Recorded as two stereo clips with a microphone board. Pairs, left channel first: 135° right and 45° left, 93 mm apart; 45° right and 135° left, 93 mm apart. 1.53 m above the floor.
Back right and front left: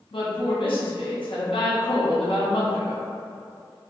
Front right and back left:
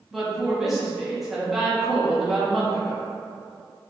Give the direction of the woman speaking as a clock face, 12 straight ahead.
5 o'clock.